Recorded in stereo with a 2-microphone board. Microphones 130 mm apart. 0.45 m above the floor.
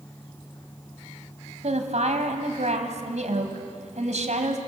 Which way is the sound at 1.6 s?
65° right (ahead or behind).